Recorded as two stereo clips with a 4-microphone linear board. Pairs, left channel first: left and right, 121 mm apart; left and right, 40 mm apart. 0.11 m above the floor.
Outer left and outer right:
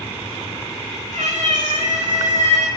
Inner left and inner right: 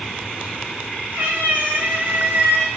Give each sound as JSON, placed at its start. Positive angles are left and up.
{"t": 1.1, "sound": "a cat meowing", "side_deg": -70, "distance_m": 4.0}